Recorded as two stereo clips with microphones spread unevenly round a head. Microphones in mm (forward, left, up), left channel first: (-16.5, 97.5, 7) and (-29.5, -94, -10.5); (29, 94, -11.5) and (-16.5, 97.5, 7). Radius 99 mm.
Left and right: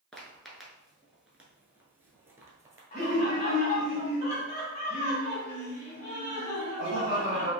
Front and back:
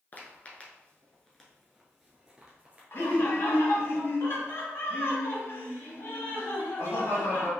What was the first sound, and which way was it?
Footsteps, 25° left.